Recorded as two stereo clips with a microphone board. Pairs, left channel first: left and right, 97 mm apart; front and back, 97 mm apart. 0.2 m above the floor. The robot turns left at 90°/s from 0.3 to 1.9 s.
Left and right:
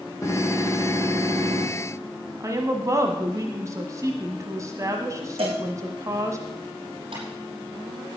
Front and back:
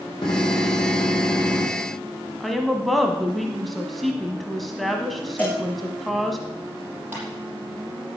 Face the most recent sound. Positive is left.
turn(degrees=-110)